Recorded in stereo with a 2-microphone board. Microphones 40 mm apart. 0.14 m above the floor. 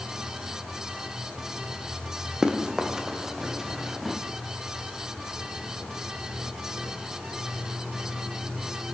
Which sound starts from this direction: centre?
Running footsteps, at 2.4 s.